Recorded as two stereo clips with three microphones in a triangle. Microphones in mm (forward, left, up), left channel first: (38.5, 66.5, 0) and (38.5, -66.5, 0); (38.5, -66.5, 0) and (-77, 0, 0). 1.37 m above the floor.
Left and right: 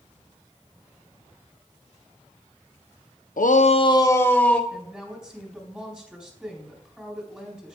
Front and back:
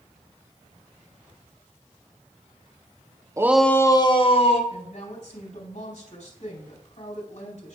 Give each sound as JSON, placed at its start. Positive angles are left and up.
{"t": 3.4, "sound": "a shout", "azimuth_deg": 85, "distance_m": 0.7}
{"t": 4.7, "sound": "a woman speaking", "azimuth_deg": -5, "distance_m": 3.5}